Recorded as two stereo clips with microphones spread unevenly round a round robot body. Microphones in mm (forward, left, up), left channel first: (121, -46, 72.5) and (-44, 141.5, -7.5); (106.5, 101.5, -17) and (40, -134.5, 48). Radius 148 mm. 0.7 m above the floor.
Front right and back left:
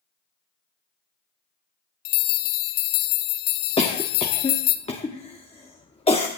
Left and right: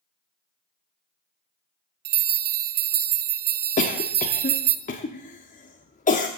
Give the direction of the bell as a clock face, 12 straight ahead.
2 o'clock.